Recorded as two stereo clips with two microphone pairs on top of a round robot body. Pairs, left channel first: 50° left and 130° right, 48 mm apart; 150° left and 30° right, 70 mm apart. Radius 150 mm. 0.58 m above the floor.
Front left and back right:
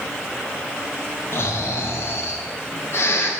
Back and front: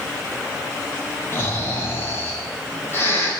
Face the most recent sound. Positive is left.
turn(degrees=90)